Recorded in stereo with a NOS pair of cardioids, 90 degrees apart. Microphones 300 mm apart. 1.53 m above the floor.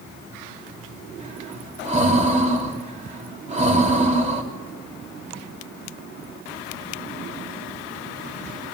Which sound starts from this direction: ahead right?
Breathing, at 1.2 s.